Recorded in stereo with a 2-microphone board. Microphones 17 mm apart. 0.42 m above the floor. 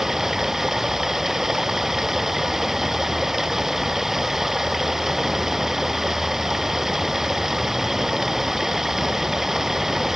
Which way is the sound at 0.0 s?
20° right (ahead or behind).